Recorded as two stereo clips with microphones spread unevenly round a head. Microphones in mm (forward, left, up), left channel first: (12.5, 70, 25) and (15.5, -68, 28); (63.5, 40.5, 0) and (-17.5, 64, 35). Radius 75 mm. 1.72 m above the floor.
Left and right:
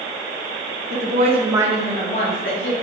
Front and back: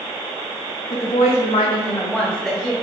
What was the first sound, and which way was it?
A woman speaking, 60° right.